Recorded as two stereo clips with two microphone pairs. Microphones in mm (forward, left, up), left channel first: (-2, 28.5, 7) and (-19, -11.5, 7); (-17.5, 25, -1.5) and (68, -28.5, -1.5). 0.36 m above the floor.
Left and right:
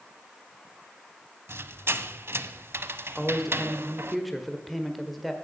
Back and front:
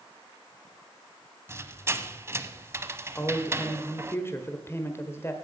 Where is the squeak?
95° right, 0.6 m.